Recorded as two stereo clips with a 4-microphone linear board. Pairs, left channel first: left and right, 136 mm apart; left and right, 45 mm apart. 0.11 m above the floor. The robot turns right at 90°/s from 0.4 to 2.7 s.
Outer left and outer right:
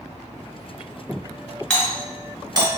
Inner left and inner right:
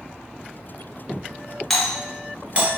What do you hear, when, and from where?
1.7 s a doorbell: 5° left (ahead or behind), 1.7 m; by 2.7 s 30° right (ahead or behind), 1.7 m